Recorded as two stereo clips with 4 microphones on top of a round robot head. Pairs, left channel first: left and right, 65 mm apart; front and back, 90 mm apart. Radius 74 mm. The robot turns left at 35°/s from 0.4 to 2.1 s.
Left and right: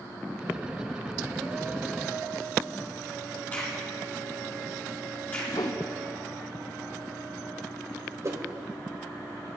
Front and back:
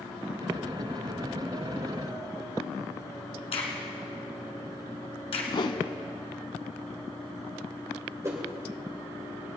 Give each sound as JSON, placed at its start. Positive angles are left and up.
{"t": 3.5, "sound": "a crack", "azimuth_deg": 20, "distance_m": 2.0}
{"t": 5.5, "sound": "a whoosh", "azimuth_deg": 35, "distance_m": 0.9}
{"t": 8.2, "sound": "a whoosh", "azimuth_deg": -125, "distance_m": 2.0}